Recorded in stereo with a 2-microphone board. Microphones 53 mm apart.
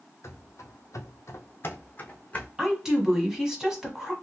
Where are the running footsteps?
60° left (ahead or behind), 0.6 m; by 2.5 s 25° left (ahead or behind), 0.9 m.